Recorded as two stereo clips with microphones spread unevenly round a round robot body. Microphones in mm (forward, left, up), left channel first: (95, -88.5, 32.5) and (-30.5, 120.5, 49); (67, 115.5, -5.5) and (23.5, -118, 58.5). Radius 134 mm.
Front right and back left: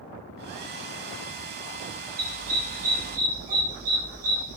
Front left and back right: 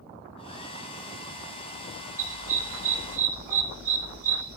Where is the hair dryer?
160° left, 1.0 m.